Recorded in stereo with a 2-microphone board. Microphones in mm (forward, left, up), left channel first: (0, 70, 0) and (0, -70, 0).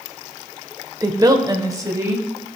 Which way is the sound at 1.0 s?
25° right (ahead or behind).